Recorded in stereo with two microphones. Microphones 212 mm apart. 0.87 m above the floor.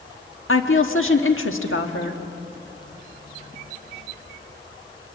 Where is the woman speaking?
75° left (ahead or behind), 1.4 m.